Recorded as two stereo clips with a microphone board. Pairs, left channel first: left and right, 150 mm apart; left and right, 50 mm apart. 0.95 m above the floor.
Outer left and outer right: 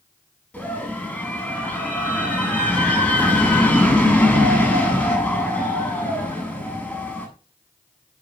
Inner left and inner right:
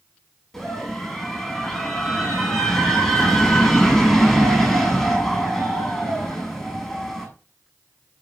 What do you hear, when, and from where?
0.5 s a scream: 10° left (ahead or behind), 8.5 m